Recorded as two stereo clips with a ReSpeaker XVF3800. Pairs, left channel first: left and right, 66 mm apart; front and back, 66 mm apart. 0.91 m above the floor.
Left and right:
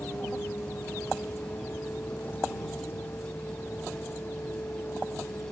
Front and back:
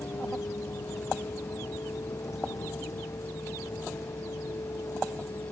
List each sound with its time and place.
0.0 s a vehicle: 35° left